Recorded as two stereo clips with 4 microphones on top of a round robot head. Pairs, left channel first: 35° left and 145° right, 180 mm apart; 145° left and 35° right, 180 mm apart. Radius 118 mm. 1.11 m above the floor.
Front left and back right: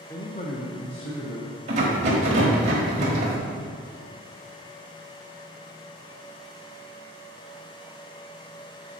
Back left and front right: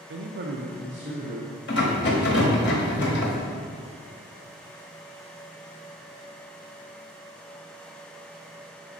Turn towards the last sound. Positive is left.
turn(degrees=165)